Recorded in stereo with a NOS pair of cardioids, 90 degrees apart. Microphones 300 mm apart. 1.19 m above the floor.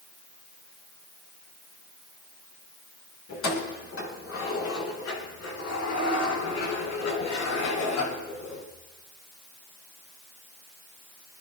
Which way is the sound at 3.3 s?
45° left.